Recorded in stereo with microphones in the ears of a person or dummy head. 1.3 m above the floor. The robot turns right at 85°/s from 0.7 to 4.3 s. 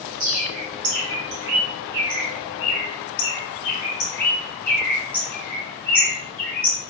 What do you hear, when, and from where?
0.2 s a bird: 45° right (ahead or behind), 3 m; by 6.8 s 5° left (ahead or behind), 3 m